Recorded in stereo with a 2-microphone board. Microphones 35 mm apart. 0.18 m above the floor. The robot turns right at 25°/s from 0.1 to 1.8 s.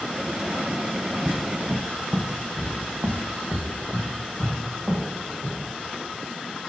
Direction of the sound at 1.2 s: 10° right (ahead or behind).